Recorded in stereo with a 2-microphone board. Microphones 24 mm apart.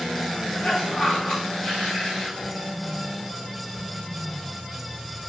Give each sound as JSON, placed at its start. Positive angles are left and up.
{"t": 0.5, "sound": "a cough", "side_deg": 45, "distance_m": 2.5}